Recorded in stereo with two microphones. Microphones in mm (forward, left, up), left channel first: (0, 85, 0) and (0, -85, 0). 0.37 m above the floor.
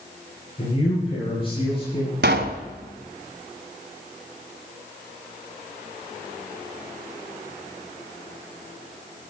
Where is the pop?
85° right, 1.0 m.